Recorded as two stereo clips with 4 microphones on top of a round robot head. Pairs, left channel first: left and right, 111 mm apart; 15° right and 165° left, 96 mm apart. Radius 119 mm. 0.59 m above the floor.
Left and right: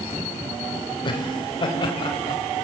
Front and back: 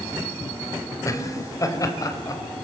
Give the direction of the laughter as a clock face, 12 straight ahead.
11 o'clock.